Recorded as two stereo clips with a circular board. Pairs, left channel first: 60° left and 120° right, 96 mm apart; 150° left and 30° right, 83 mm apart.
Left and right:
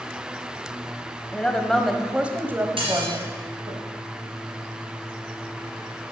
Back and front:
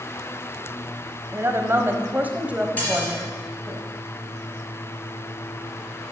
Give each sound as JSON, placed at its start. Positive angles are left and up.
{"t": 1.3, "sound": "a woman speaking", "azimuth_deg": -5, "distance_m": 1.2}
{"t": 2.8, "sound": "dishes clattering", "azimuth_deg": -140, "distance_m": 3.5}